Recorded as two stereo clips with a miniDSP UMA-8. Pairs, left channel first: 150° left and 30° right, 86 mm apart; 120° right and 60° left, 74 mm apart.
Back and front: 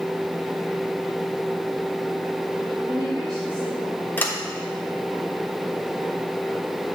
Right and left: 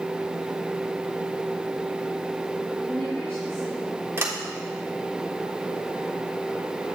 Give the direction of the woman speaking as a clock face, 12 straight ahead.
2 o'clock.